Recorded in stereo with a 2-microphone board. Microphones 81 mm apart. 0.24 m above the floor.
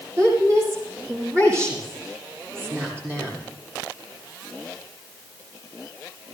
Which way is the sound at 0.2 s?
35° right (ahead or behind).